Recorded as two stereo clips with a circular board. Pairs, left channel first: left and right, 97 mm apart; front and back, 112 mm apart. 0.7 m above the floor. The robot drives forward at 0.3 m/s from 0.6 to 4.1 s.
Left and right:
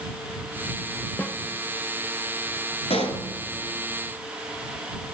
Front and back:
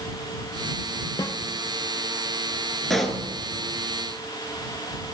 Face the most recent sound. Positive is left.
turn(degrees=100)